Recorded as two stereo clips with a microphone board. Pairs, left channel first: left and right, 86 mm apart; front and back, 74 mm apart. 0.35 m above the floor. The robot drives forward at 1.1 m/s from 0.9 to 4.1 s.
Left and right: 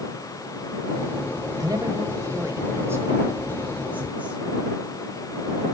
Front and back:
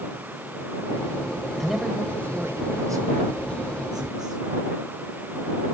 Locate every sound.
1.6 s a man speaking: 80° right, 1.2 m; by 5.7 s 160° right, 3 m